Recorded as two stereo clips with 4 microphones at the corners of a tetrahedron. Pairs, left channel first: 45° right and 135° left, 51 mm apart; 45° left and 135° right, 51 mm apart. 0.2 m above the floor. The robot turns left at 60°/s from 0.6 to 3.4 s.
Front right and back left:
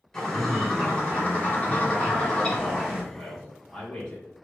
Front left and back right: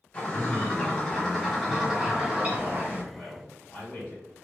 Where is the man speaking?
35° left, 1.5 m; by 4.3 s 20° left, 1.5 m.